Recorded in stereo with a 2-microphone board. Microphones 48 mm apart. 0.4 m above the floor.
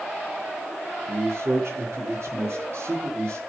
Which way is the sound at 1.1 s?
65° right (ahead or behind).